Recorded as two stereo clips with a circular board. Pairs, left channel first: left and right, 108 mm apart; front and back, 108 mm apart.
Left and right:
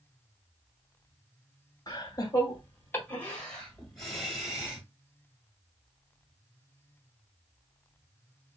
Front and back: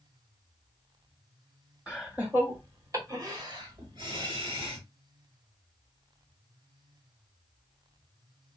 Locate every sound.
1.9 s laughter: 100° left, 1.3 m; by 4.8 s 170° right, 1.8 m